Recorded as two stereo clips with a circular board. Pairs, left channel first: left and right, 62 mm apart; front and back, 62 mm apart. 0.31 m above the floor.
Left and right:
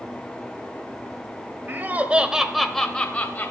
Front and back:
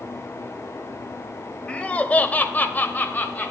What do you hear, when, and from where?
1.7 s laughter: 60° right, 1.1 m; by 3.5 s 45° left, 1.2 m